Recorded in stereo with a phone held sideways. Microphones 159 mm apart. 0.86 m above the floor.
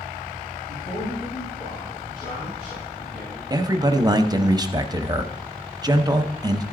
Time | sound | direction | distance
0.7 | a man speaking | 55° left (ahead or behind) | 5.5 m
3.5 | a man speaking | 25° right (ahead or behind) | 0.6 m